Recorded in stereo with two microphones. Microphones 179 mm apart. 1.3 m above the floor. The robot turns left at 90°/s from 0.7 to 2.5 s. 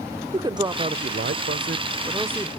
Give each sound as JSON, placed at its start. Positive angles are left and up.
{"t": 0.3, "sound": "a man speaking", "azimuth_deg": -25, "distance_m": 0.5}